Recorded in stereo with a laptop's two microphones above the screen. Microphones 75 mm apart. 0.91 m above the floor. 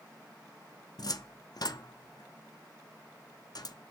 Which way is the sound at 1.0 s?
55° left (ahead or behind).